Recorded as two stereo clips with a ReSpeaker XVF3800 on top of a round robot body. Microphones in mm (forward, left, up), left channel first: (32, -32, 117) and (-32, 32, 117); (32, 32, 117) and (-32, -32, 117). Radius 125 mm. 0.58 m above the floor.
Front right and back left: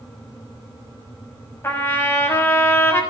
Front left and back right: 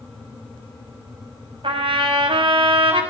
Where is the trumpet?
110° right, 5.5 m.